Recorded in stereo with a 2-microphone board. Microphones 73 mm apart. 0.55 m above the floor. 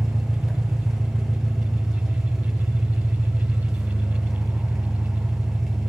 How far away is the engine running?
About 1.4 m.